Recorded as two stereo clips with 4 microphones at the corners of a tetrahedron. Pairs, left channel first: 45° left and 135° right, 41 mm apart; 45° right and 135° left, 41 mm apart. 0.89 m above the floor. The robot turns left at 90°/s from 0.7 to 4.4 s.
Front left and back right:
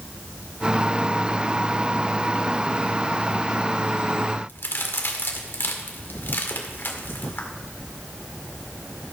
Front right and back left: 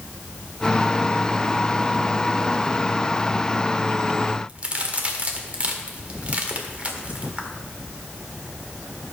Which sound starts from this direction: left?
A crack, at 4.5 s.